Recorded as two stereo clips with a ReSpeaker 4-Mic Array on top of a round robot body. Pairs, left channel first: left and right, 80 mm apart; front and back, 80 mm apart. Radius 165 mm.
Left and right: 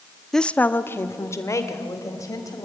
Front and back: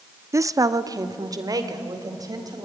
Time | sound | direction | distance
0.3 | a woman speaking | 175° left | 0.9 m